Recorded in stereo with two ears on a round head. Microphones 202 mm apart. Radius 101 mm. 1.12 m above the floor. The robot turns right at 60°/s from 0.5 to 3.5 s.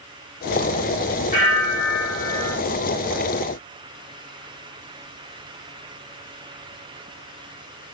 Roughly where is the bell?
Behind left.